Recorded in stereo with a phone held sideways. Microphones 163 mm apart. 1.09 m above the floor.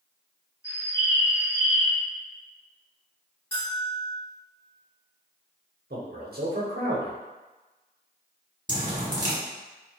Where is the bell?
35° left (ahead or behind), 1.8 m.